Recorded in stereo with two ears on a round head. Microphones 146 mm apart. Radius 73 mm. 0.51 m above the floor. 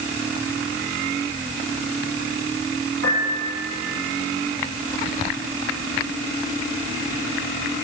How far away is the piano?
About 8 m.